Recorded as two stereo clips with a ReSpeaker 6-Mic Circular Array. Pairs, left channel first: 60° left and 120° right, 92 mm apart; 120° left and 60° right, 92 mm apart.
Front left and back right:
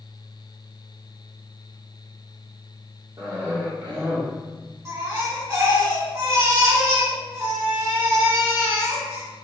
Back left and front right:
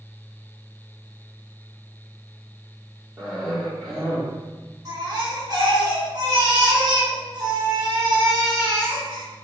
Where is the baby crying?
80° right, 1.5 m.